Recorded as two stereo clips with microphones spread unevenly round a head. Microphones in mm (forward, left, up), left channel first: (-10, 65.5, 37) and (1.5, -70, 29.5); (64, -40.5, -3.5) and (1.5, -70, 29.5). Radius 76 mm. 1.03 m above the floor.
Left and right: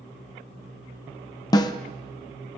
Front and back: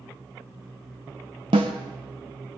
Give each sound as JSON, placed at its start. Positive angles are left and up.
{"t": 1.5, "sound": "a snare drum", "azimuth_deg": 155, "distance_m": 0.8}